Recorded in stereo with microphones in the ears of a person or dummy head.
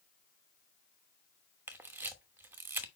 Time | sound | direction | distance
1.7 | a camera shutter | 10° right (ahead or behind) | 1.0 m